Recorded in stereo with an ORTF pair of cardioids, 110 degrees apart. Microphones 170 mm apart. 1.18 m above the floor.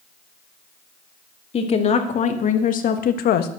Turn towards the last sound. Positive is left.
turn(degrees=70)